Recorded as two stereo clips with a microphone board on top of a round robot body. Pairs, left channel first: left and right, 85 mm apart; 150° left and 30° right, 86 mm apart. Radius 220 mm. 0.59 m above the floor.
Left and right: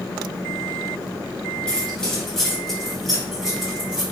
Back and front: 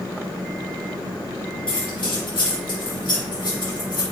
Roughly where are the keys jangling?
Behind.